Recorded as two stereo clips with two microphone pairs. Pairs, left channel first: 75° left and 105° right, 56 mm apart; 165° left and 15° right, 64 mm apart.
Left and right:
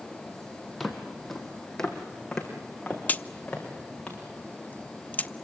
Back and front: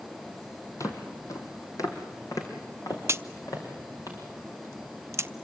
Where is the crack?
20° left, 0.6 m.